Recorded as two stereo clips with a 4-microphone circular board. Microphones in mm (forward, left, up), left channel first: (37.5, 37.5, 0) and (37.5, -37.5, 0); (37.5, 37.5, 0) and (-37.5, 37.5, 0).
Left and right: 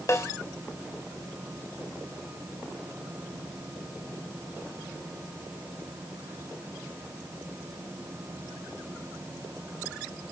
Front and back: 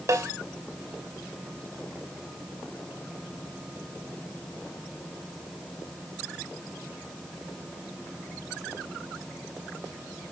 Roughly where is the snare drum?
Behind left.